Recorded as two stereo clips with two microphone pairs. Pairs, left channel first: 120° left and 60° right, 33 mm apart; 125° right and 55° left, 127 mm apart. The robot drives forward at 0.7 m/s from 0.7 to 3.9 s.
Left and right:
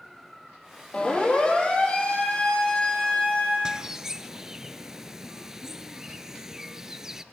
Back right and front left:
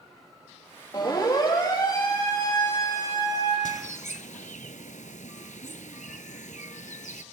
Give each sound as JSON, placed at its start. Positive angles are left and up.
{"t": 0.9, "sound": "a siren", "azimuth_deg": 175, "distance_m": 9.0}
{"t": 3.6, "sound": "a bird", "azimuth_deg": -130, "distance_m": 0.8}